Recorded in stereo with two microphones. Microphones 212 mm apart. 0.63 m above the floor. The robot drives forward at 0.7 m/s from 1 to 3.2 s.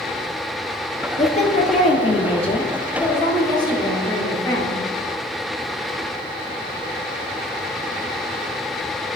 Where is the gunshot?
I don't hear a gunshot.